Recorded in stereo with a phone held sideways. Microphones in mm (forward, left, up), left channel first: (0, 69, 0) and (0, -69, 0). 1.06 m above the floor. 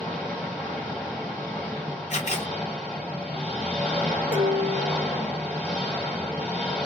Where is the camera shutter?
50° left (ahead or behind), 1.1 m.